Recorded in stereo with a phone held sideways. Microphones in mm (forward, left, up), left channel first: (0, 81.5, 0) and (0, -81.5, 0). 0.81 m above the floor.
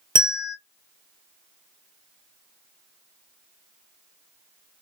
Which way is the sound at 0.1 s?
30° right (ahead or behind).